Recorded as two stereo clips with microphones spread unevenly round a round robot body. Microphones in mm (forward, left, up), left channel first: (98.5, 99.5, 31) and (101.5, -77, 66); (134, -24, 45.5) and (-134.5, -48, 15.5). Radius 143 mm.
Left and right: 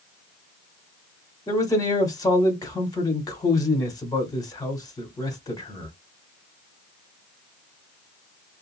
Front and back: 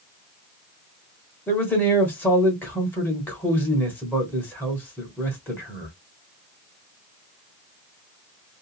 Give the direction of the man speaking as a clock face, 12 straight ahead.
9 o'clock.